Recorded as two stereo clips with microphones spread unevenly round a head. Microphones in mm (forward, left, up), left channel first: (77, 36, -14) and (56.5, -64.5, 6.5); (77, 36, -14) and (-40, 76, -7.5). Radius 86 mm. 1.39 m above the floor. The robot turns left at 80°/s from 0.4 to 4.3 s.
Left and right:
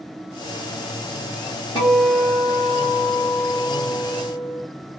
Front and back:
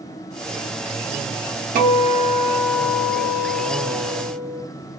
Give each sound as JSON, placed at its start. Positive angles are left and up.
{"t": 1.8, "sound": "a guitar", "azimuth_deg": 150, "distance_m": 1.1}